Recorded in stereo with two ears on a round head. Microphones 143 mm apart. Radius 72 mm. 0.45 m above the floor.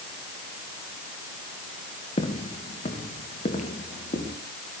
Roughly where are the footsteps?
Left.